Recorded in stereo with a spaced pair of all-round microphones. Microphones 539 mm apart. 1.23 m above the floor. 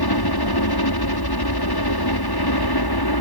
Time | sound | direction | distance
0.0 | a helicopter | 45° left (ahead or behind) | ?